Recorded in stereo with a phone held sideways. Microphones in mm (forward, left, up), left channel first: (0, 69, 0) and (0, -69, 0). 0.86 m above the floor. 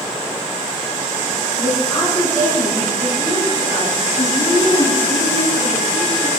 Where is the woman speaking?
20° left (ahead or behind), 7.5 m; by 6.3 s 50° left (ahead or behind), 5 m.